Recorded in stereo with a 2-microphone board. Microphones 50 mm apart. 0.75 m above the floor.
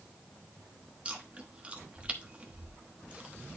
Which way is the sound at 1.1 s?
25° right (ahead or behind).